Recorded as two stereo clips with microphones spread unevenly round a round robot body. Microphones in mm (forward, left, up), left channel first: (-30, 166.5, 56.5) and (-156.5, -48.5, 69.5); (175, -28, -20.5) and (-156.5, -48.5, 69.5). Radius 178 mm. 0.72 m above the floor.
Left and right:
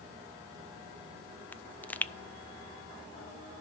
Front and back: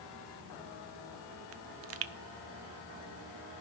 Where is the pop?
135° left, 0.6 m.